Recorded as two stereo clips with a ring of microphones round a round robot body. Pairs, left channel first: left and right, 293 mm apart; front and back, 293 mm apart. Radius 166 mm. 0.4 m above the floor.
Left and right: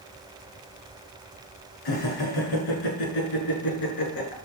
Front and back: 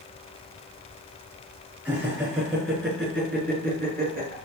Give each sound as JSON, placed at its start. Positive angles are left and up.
{"t": 1.9, "sound": "laughter", "azimuth_deg": 95, "distance_m": 6.0}